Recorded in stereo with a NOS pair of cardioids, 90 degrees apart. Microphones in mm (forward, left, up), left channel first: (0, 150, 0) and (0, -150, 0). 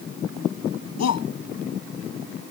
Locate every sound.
1.0 s a shout: 60° left